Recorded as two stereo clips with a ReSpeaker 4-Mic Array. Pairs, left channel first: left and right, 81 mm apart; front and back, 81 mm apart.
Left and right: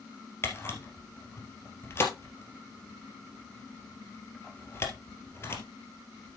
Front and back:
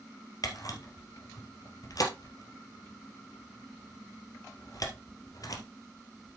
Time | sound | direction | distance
0.4 | a camera shutter | 35° left | 2 m